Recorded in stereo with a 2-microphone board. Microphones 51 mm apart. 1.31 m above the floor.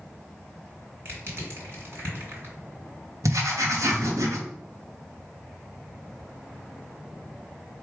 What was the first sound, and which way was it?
Crushing, 50° right (ahead or behind).